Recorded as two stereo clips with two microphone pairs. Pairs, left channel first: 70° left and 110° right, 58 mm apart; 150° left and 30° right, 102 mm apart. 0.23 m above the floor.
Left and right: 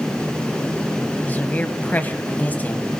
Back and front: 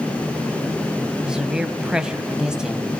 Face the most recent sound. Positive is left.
turn(degrees=50)